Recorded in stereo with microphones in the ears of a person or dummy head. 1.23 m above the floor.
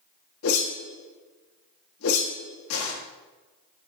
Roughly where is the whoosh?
Left.